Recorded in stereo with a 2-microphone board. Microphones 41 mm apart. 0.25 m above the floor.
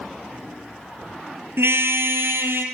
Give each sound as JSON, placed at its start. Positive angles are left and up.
{"t": 1.6, "sound": "a car horn", "side_deg": -75, "distance_m": 3.5}